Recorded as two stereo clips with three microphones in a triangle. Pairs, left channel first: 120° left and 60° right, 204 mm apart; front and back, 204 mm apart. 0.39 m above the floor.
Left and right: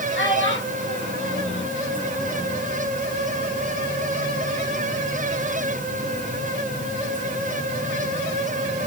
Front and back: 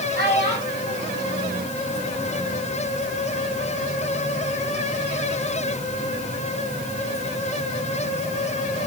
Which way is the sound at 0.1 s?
140° left.